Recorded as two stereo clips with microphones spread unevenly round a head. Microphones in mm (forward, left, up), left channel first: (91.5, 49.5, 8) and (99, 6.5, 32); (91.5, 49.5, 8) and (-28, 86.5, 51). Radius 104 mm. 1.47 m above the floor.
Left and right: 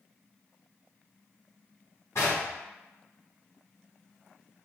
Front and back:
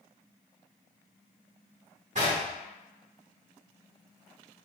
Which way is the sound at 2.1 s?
175° right.